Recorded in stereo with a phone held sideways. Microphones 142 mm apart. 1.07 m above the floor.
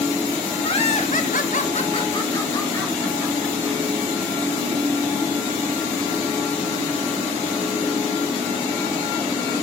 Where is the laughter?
40° left (ahead or behind), 1.7 m; by 3.8 s 10° left (ahead or behind), 4 m.